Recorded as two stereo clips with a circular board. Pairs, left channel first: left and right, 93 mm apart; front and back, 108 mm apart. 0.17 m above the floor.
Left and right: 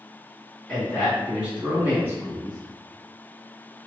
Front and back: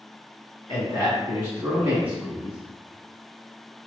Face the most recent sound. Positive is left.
turn(degrees=-100)